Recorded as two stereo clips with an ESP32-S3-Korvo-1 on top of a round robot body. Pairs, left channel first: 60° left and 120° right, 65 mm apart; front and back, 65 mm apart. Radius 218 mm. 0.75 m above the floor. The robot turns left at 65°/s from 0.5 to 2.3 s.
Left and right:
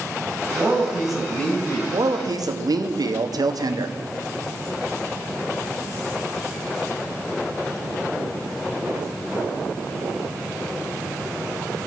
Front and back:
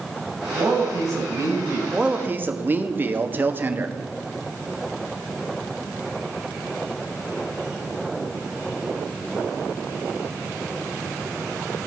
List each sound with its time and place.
0.6 s a man speaking: 170° right, 6.5 m; by 1.8 s 105° left, 6.5 m
1.9 s a man speaking: 95° right, 1.7 m; by 4.0 s 120° right, 1.7 m